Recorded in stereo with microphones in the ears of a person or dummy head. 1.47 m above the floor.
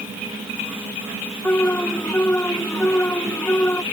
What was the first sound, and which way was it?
An alarm, 10° left (ahead or behind).